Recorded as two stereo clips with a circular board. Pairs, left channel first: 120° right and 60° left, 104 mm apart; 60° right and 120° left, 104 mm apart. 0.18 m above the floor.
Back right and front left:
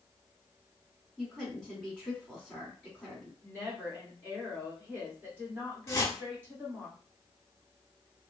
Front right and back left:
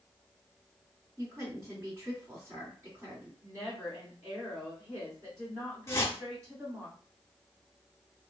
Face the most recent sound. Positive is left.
turn(degrees=-95)